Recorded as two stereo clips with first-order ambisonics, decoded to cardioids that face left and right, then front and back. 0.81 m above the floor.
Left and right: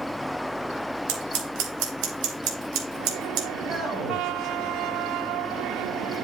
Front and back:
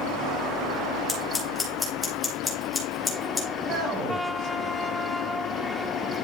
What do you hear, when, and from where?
1.1 s scissors: 80° right, 3 m
3.6 s a man speaking: 140° right, 4.5 m